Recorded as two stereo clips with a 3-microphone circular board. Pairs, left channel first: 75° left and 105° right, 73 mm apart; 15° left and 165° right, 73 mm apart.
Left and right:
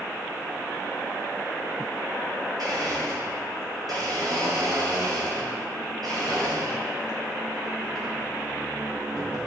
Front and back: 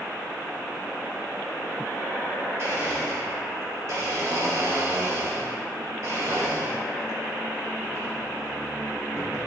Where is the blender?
120° right, 4.5 m.